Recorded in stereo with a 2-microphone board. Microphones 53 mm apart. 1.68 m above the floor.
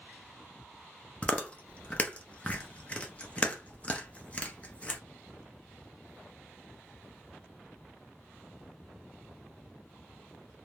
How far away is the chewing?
About 0.6 m.